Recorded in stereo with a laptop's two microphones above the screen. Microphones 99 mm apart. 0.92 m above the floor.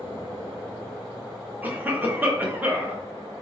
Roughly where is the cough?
Centre.